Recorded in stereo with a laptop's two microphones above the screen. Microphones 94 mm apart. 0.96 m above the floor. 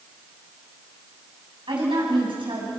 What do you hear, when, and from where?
1.7 s a woman speaking: 60° right (ahead or behind), 8.5 m